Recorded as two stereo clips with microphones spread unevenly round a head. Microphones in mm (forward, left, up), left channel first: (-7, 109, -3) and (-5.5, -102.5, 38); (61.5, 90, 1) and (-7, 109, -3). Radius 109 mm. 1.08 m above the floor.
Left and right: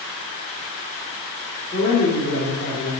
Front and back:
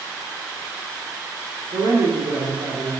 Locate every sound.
1.7 s a man speaking: 155° left, 2.5 m